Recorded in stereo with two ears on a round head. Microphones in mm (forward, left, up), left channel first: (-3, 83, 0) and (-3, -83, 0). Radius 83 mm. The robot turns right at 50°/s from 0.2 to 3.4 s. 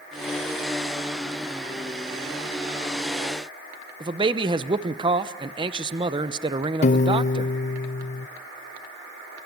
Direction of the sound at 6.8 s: 40° left (ahead or behind).